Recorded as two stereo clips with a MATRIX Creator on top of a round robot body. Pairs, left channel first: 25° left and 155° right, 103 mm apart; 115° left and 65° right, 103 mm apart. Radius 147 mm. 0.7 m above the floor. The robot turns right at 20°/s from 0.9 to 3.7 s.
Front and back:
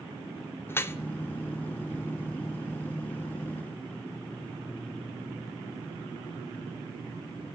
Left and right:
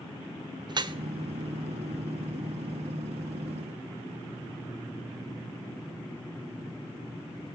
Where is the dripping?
40° right, 0.6 m.